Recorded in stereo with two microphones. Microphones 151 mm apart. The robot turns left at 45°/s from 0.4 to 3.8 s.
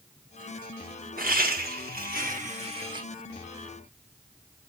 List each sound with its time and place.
1.2 s laughter: 70° right, 1.2 m; by 3.0 s 150° right, 1.2 m